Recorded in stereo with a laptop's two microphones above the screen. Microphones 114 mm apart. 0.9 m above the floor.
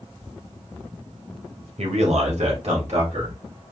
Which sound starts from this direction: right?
A man speaking, at 1.8 s.